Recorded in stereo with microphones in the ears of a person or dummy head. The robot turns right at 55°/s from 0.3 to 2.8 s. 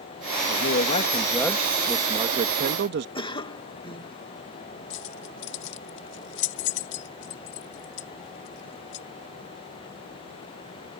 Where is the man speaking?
115° left; by 3.0 s 120° right.